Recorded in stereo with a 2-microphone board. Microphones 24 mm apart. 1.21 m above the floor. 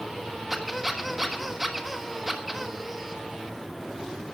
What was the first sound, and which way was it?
A squeak, 10° right (ahead or behind).